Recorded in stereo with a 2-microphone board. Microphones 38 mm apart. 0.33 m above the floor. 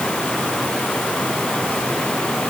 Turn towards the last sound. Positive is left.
No sound to turn to.